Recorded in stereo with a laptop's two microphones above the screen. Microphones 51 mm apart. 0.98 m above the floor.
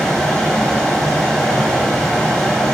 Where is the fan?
5° left (ahead or behind), 1.3 m.